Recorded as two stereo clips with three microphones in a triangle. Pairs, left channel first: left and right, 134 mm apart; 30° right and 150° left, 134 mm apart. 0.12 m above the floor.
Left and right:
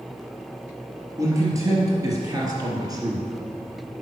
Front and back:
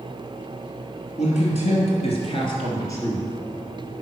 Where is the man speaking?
25° right, 3.5 m; by 3.9 s 145° right, 2 m.